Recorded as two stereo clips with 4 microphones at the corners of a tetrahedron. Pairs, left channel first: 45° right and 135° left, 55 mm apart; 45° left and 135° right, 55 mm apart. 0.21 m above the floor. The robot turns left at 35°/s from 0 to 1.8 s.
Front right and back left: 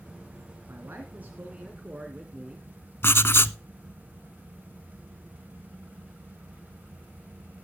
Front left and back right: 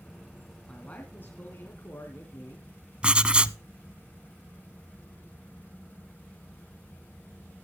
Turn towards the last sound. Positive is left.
turn(degrees=-70)